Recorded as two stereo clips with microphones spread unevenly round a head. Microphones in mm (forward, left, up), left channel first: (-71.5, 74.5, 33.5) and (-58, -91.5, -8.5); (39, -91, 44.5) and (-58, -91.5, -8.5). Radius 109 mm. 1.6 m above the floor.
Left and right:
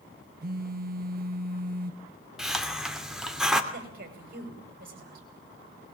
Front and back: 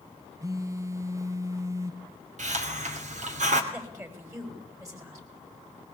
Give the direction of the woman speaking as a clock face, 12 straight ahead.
4 o'clock.